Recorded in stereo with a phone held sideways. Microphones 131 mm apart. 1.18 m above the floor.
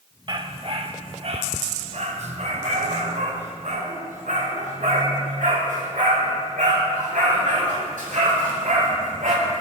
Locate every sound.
0.3 s a dog barking: 40° right (ahead or behind), 1.1 m; by 9.3 s 75° right (ahead or behind), 5.5 m